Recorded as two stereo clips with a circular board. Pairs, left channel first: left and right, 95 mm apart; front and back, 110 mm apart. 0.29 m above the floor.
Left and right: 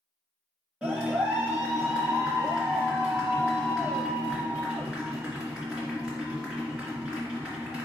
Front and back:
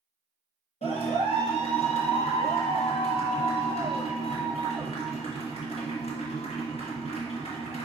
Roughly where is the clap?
Ahead.